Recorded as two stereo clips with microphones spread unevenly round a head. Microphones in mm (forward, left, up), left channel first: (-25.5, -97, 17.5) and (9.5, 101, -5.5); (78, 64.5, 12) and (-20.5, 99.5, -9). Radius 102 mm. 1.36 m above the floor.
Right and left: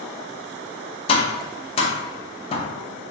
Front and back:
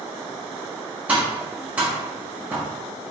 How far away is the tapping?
About 0.6 m.